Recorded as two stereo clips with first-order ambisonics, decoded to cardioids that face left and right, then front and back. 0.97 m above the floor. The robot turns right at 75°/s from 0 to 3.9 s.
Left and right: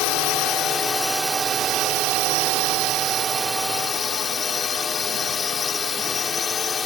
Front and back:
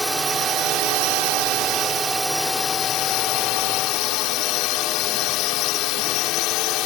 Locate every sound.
0.0 s a drone: 90° left; by 6.9 s 25° left